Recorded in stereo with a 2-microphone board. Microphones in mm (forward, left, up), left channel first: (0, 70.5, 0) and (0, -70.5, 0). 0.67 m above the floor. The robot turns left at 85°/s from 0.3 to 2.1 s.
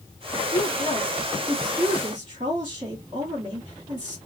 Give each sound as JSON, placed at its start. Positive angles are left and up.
{"t": 0.5, "sound": "a woman speaking", "azimuth_deg": 85, "distance_m": 1.4}